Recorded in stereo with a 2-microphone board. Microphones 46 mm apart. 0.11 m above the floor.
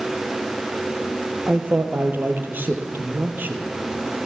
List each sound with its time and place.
1.5 s a man speaking: 45° right (ahead or behind), 3 m